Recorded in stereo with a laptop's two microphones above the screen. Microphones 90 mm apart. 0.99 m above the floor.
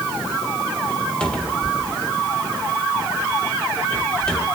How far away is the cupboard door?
About 1.3 m.